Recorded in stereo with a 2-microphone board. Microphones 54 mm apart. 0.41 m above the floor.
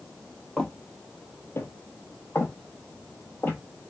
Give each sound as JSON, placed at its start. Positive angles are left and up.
{"t": 0.6, "sound": "footsteps", "side_deg": 15, "distance_m": 0.6}